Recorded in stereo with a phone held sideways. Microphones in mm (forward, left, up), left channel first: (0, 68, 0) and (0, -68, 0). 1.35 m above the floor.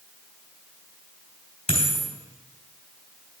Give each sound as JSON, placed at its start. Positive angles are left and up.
{"t": 1.7, "sound": "a dropped coin", "side_deg": 45, "distance_m": 3.5}